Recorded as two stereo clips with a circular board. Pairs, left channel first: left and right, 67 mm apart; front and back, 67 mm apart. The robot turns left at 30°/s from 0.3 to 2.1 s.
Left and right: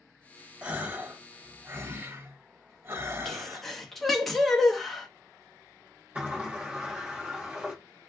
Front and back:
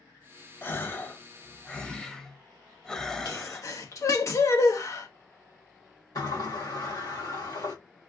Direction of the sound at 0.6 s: 30° right.